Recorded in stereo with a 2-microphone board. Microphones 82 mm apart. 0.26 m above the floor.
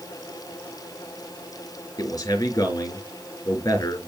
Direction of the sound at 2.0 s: 45° left (ahead or behind).